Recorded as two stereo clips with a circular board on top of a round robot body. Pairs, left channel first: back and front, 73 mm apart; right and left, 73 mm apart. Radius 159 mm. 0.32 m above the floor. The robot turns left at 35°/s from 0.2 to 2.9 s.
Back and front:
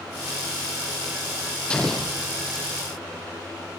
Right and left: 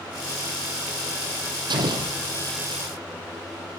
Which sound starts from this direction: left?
An explosion, at 1.7 s.